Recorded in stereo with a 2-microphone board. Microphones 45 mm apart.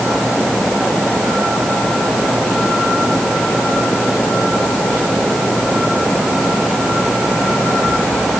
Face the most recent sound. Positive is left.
No sound to turn to.